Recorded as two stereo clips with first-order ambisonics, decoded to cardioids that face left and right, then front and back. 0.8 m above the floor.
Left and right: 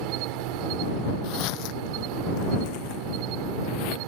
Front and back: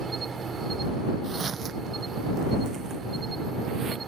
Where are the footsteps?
105° left; by 4.0 s 110° left.